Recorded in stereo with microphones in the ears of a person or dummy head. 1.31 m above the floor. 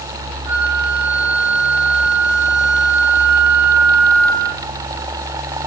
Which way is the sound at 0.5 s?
50° right (ahead or behind).